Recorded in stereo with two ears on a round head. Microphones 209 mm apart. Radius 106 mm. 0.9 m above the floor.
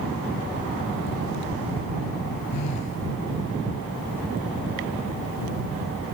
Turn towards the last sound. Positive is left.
turn(degrees=90)